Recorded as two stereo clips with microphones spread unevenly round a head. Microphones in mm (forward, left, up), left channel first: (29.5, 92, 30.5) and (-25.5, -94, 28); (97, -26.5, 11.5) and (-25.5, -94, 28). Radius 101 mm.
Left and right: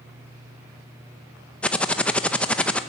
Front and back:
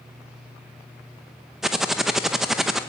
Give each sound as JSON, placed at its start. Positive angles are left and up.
{"t": 1.6, "sound": "typing on a keyboard", "azimuth_deg": 145, "distance_m": 0.7}